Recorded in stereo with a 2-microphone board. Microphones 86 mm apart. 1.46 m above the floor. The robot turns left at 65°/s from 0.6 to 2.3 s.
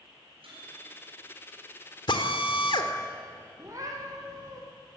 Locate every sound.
0.4 s a microwave: 95° right, 10 m; by 1.2 s 135° right, 10 m
2.1 s a drill: 60° left (ahead or behind), 1.9 m; by 2.9 s 65° left (ahead or behind), 1.9 m
3.6 s a cat meowing: 35° right (ahead or behind), 4 m